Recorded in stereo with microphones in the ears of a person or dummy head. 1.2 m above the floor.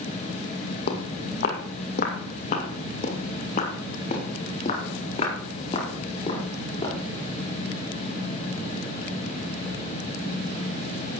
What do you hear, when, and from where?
0.9 s footsteps: 60° left (ahead or behind), 2.5 m; by 7.0 s 30° left (ahead or behind), 5.5 m